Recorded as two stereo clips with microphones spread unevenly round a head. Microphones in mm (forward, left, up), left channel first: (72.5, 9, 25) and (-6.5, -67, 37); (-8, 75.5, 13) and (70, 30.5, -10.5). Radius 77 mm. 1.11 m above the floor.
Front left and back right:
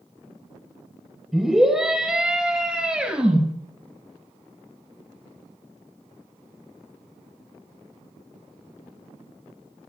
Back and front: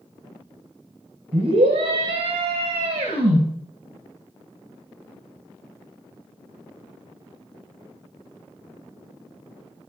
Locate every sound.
1.3 s a scream: 50° right, 4 m; by 3.4 s 55° right, 5.5 m